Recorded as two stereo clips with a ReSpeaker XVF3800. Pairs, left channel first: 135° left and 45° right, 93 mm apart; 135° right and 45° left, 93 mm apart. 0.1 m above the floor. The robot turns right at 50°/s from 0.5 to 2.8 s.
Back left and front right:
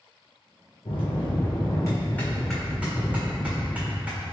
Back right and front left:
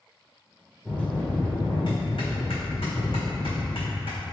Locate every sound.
0.8 s a bell: 140° left, 1.4 m; by 4.2 s 120° right, 1.4 m